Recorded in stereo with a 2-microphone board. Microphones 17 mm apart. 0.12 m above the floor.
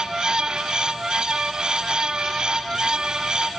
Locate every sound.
Only background noise.